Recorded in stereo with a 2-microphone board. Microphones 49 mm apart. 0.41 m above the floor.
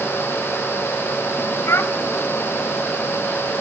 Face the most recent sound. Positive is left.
turn(degrees=65)  # may be behind; listen again after turning